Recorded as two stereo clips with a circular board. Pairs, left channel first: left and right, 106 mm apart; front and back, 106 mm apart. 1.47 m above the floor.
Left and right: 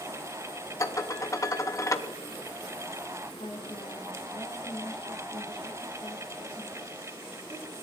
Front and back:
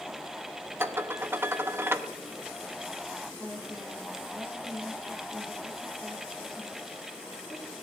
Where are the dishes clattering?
125° left, 0.7 m.